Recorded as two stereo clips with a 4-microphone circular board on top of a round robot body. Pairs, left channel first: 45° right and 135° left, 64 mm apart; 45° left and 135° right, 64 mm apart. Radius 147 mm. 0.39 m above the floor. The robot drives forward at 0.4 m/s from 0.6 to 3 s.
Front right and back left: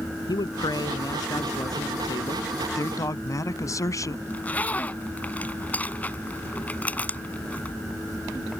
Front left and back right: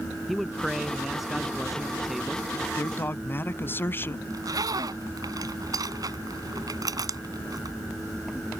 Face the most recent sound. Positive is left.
turn(degrees=-110)